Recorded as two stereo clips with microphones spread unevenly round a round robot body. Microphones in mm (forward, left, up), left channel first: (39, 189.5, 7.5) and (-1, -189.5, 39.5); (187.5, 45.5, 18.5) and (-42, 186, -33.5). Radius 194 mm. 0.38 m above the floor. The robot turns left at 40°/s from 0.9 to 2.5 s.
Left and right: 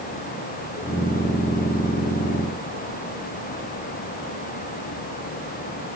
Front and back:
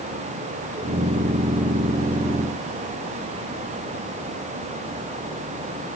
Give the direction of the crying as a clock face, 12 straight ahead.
I don't hear crying.